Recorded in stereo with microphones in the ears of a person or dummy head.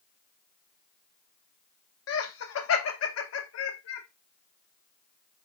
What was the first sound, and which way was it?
Laughter, 80° left.